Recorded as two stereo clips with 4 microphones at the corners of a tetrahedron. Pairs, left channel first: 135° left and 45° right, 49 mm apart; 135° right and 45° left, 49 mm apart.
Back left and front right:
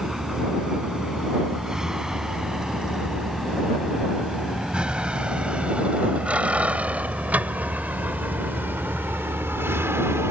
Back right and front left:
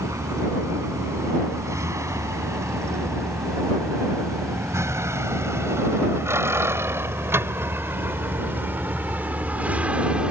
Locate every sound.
0.0 s a vehicle: 35° left; by 10.3 s 25° right